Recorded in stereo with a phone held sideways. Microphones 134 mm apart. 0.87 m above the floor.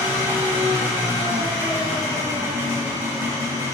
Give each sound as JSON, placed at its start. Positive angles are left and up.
{"t": 0.0, "sound": "an engine running", "side_deg": -20, "distance_m": 1.7}